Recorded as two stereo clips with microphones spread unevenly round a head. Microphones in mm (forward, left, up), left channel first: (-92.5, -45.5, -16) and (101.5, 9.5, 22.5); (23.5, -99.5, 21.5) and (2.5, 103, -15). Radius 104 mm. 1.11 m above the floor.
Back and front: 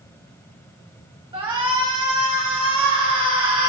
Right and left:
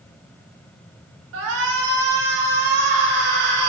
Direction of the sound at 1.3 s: 85° left.